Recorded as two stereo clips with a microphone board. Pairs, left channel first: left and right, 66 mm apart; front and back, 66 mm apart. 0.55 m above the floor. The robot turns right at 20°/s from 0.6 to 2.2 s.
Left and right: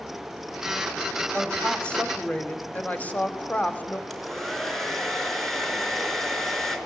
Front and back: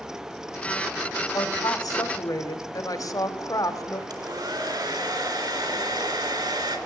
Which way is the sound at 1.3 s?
5° left.